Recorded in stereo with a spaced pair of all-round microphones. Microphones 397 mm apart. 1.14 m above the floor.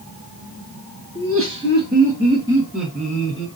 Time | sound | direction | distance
1.1 | laughter | 40° right (ahead or behind) | 1.5 m